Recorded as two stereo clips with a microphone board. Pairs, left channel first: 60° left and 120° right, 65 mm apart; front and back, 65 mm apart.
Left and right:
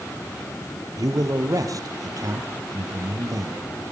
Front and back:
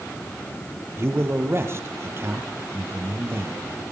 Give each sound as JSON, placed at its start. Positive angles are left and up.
{"t": 1.0, "sound": "a man speaking", "azimuth_deg": -135, "distance_m": 3.5}